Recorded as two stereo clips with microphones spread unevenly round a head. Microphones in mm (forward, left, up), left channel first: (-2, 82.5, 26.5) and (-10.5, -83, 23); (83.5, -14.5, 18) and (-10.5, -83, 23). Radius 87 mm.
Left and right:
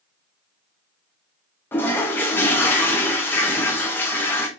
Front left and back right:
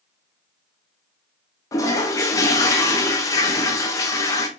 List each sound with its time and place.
1.7 s a toilet flushing: 35° left, 0.6 m